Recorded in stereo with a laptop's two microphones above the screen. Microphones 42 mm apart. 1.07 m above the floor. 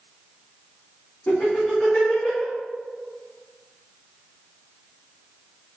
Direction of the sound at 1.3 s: 35° left (ahead or behind).